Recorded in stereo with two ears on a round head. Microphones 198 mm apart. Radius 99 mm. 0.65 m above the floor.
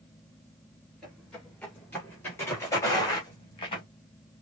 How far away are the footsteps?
About 3.5 m.